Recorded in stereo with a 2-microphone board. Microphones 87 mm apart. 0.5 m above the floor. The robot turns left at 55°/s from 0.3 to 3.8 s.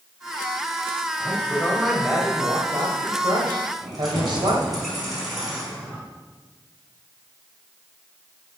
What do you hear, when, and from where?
1.2 s a man speaking: 40° left, 2 m; by 4.8 s 105° right, 2 m
3.8 s keys jangling: centre (ahead or behind), 3.5 m